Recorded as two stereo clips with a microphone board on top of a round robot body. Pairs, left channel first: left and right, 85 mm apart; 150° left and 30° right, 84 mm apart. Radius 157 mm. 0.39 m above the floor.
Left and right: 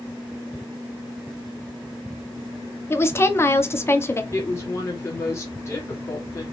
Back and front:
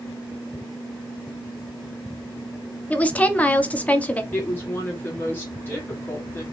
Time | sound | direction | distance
2.9 | a woman speaking | 95° left | 0.8 m
4.3 | a woman speaking | 105° left | 1.5 m